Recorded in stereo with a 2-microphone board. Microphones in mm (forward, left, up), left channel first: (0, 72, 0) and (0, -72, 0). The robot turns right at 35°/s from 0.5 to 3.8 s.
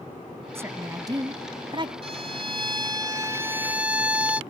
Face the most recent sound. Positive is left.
turn(degrees=-15)